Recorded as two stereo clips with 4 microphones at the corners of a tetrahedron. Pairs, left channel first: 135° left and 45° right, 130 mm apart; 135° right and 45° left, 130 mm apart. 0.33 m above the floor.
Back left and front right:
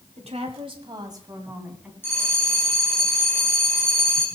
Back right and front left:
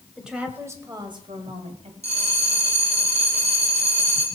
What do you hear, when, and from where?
0.2 s a woman speaking: 40° right, 2.5 m; by 1.9 s 35° left, 2.5 m
2.0 s a bell: 65° left, 2.5 m